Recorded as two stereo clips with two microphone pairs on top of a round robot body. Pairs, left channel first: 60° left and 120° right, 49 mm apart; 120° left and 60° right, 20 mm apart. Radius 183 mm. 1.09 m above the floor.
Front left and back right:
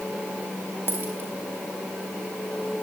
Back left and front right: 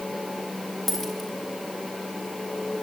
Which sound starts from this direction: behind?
A dropped coin, at 0.9 s.